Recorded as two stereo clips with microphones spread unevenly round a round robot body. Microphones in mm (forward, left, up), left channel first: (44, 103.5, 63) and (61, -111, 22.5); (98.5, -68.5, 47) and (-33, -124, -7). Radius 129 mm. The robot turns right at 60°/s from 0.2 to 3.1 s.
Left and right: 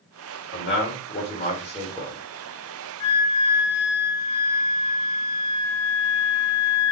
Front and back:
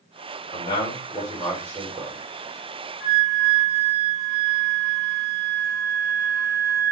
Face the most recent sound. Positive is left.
turn(degrees=110)